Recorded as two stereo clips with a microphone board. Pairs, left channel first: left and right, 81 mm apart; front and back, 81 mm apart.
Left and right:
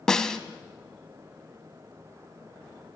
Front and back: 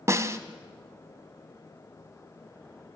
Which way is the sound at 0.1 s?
165° left.